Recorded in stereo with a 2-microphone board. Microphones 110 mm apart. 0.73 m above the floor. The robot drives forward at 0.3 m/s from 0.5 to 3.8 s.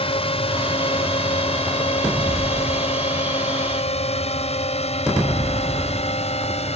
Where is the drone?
60° left (ahead or behind); by 6.8 s 70° left (ahead or behind).